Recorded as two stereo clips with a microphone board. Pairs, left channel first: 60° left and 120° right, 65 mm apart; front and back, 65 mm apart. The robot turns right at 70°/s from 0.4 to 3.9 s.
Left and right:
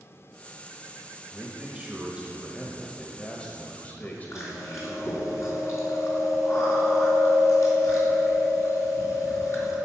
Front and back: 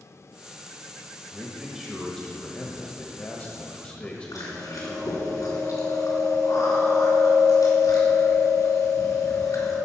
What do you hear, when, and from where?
1.3 s a man speaking: 135° right, 1.2 m; by 5.1 s 45° left, 1.2 m
4.3 s chewing: 20° left, 3.5 m